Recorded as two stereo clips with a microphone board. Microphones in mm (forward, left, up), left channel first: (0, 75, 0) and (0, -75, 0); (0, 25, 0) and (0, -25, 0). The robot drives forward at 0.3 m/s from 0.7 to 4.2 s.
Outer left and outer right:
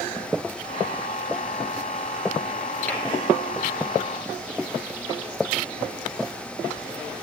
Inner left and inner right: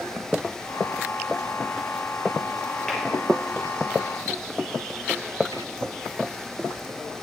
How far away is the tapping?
About 2.5 m.